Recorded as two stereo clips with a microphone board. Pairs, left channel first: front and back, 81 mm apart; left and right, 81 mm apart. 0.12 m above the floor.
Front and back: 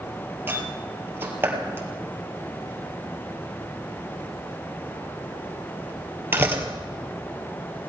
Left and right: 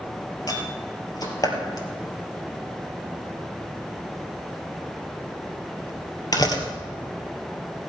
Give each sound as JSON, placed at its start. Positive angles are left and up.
{"t": 0.5, "sound": "a door slam", "azimuth_deg": 120, "distance_m": 2.0}